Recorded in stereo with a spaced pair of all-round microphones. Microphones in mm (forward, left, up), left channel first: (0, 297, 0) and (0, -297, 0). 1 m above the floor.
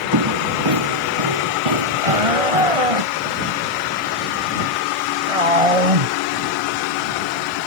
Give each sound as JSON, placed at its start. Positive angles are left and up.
{"t": 0.1, "sound": "footsteps", "side_deg": -40}
{"t": 2.0, "sound": "a shout", "side_deg": -70}